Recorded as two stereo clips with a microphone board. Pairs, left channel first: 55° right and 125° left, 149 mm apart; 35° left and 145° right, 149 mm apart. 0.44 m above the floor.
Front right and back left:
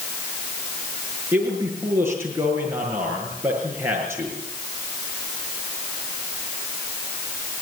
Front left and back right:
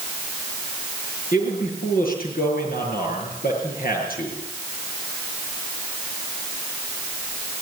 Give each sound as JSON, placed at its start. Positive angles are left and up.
{"t": 1.3, "sound": "a man speaking", "azimuth_deg": 50, "distance_m": 7.0}